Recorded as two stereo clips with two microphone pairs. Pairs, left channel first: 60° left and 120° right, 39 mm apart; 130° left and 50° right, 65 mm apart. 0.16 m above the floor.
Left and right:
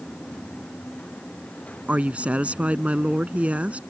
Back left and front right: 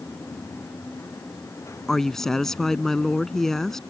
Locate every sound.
1.9 s a woman speaking: 150° right